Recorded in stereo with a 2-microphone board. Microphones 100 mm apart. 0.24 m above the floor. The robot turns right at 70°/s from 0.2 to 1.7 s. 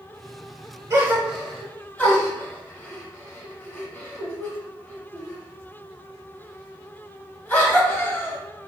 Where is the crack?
I don't hear a crack.